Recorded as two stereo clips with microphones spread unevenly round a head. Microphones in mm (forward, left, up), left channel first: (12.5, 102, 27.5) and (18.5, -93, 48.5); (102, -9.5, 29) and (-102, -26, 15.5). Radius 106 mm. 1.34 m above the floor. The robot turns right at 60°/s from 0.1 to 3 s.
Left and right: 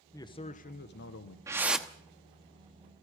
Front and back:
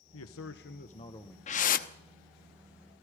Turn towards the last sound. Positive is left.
turn(degrees=65)